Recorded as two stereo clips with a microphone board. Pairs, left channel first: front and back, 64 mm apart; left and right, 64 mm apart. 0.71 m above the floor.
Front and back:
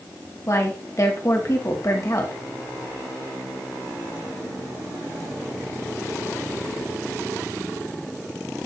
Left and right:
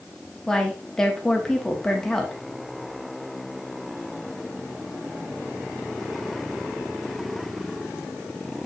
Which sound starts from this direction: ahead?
A woman speaking, at 0.5 s.